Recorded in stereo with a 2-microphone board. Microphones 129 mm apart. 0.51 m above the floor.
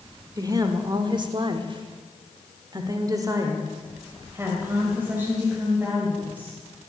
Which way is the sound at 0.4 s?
30° right (ahead or behind).